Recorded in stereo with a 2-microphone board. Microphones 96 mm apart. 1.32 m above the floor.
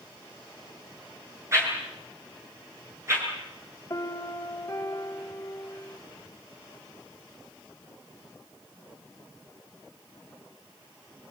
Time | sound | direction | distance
1.5 | a whoosh | 30° right (ahead or behind) | 8 m
3.9 | a piano | 35° left (ahead or behind) | 2.5 m